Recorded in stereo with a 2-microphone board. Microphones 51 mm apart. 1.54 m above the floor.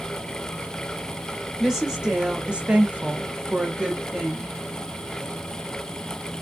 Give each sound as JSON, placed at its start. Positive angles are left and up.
{"t": 1.6, "sound": "a woman speaking", "side_deg": -10, "distance_m": 1.0}